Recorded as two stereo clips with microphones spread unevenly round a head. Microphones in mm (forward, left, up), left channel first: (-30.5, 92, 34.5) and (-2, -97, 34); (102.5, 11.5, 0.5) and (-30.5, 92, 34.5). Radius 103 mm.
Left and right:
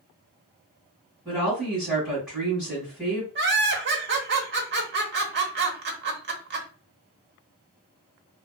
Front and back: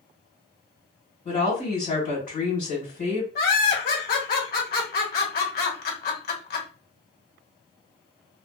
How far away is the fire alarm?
No fire alarm in this recording.